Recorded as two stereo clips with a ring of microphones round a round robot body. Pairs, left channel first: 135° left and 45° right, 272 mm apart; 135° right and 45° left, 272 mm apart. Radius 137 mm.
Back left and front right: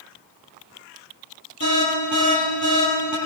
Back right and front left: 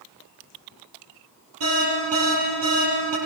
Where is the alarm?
5° left, 8.5 m.